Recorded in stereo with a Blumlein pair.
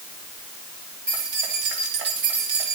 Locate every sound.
1.1 s keys jangling: 55° right, 3.5 m